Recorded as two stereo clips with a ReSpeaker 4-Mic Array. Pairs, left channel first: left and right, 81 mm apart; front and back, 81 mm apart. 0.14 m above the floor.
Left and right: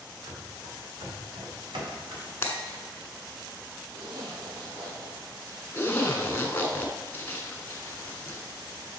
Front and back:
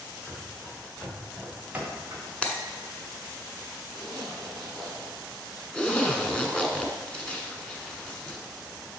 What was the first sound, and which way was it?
Running footsteps, 75° right.